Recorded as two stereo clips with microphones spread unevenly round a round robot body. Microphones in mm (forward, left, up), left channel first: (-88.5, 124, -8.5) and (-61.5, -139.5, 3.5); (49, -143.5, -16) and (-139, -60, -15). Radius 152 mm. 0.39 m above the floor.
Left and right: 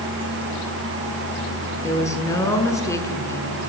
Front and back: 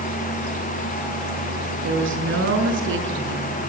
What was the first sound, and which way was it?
A woman speaking, 175° left.